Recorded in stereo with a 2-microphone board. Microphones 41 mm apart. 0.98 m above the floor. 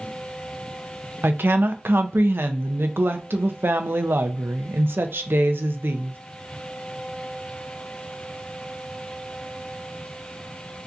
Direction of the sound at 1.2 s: 60° right (ahead or behind).